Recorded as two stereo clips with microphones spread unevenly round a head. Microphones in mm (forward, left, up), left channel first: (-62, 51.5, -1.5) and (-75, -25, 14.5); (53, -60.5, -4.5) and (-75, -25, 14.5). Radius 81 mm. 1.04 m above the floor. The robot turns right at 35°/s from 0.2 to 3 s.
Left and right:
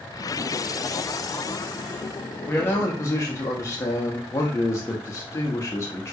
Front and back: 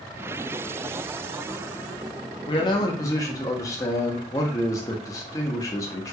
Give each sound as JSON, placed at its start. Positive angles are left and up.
{"t": 2.5, "sound": "a man speaking", "azimuth_deg": 20, "distance_m": 0.7}